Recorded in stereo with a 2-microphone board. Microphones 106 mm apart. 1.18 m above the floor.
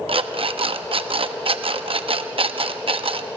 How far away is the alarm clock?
About 0.7 m.